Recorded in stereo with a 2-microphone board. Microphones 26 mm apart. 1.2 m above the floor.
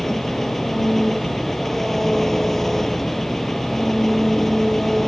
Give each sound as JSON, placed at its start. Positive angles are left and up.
{"t": 0.0, "sound": "an engine running", "side_deg": 10}